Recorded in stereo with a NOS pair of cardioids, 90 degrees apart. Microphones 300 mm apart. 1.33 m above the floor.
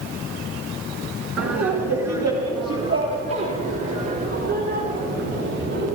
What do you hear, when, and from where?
1.4 s laughter: 55° right, 1.8 m; by 5.9 s 45° right, 4.5 m